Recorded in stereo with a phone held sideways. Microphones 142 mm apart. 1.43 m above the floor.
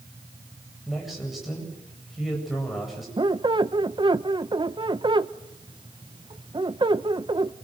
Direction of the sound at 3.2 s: 35° right (ahead or behind).